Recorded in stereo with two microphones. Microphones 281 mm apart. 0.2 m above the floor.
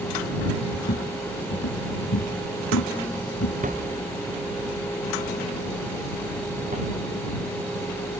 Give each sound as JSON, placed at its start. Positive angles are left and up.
{"t": 0.7, "sound": "footsteps", "side_deg": 45}
{"t": 3.6, "sound": "a thud", "side_deg": -30}